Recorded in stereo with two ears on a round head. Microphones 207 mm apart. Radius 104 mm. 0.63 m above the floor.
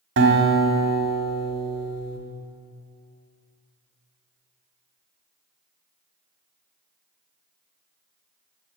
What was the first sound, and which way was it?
A guitar, 50° right (ahead or behind).